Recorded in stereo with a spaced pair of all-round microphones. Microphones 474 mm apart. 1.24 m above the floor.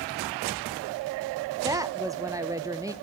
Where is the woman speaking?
5° right (ahead or behind), 0.8 m.